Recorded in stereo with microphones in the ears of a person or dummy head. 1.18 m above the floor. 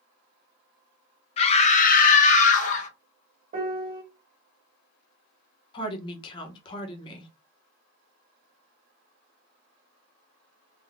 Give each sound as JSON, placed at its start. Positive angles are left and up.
{"t": 1.4, "sound": "a scream", "side_deg": 30, "distance_m": 0.6}
{"t": 3.5, "sound": "a piano", "side_deg": -45, "distance_m": 0.8}
{"t": 5.7, "sound": "a woman speaking", "side_deg": 25, "distance_m": 0.9}